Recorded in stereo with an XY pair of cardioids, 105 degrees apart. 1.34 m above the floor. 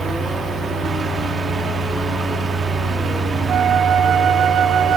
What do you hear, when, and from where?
0.0 s a fan: 45° right, 3.5 m
3.5 s a flute: 65° right, 1.2 m